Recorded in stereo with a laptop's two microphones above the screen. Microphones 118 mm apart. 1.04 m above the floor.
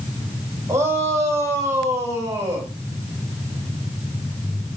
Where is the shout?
25° right (ahead or behind), 4.5 m.